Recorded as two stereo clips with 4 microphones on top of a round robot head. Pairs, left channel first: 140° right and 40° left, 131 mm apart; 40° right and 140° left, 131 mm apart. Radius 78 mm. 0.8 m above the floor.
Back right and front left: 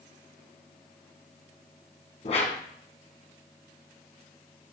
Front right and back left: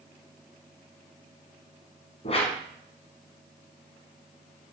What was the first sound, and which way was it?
A whoosh, 90° right.